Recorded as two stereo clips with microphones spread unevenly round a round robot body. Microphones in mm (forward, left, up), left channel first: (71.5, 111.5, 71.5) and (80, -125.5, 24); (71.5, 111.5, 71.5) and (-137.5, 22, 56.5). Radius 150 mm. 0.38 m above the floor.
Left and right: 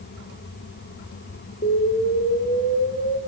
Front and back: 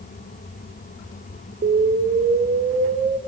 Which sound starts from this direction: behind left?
An explosion, at 1.6 s.